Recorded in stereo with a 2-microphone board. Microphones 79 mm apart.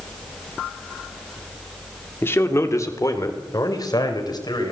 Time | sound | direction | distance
2.2 | a man speaking | 30° left (ahead or behind) | 2 m